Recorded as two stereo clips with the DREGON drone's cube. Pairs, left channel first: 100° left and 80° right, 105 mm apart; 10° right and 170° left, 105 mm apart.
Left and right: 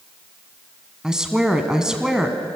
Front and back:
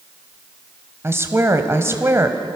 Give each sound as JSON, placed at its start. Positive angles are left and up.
{"t": 1.0, "sound": "a woman speaking", "azimuth_deg": -155, "distance_m": 1.4}